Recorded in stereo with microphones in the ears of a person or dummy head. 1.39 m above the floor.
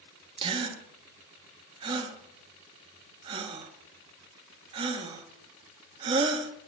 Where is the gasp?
30° right (ahead or behind), 1.3 m.